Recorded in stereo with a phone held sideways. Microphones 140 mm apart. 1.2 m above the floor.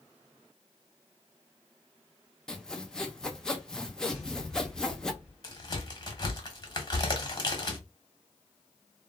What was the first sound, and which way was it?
Sawing, 5° left (ahead or behind).